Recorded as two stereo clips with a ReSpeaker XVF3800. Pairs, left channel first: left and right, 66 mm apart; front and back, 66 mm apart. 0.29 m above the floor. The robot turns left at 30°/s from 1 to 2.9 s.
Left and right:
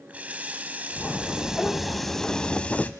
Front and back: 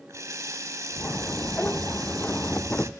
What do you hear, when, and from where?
0.1 s a running tap: 150° right, 1.1 m; by 2.9 s 150° left, 1.1 m